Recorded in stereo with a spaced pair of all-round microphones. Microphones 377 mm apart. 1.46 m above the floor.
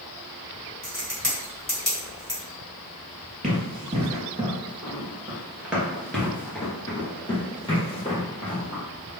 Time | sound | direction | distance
0.8 | a crack | 25° left (ahead or behind) | 1.9 m
3.4 | running footsteps | 20° right (ahead or behind) | 1.8 m